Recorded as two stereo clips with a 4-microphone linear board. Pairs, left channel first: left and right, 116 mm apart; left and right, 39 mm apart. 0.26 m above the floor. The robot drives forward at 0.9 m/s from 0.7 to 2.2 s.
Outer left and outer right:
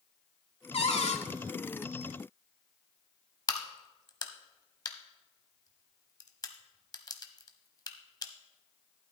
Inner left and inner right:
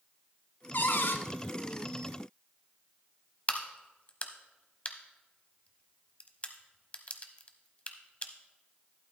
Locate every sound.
0.7 s a cupboard door: 60° left (ahead or behind), 0.9 m; by 1.2 s 70° left (ahead or behind), 0.8 m
3.5 s a crack: 35° left (ahead or behind), 0.8 m